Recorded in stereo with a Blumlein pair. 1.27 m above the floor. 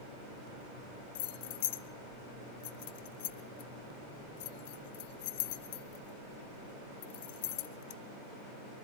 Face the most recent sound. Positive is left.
turn(degrees=50)